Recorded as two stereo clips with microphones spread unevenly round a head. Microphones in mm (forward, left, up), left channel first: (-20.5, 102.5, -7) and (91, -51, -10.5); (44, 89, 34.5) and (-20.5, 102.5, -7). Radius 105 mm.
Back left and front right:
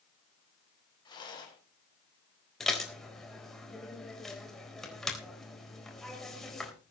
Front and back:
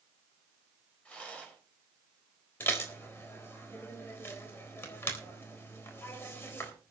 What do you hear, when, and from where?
1.1 s a rattle: 60° left, 5.5 m
2.6 s dishes clattering: 40° left, 4 m